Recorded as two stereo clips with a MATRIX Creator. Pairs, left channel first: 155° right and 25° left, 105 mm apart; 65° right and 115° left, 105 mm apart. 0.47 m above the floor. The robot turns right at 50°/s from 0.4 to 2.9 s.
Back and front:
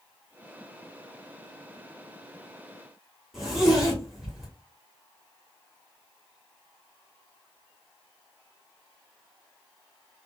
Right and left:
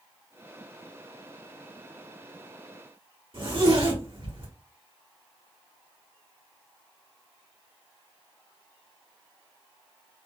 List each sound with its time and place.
3.3 s a zipper: 110° left, 1.7 m